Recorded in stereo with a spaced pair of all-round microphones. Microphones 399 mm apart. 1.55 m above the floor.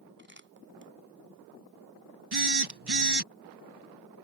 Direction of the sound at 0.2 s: 30° right (ahead or behind).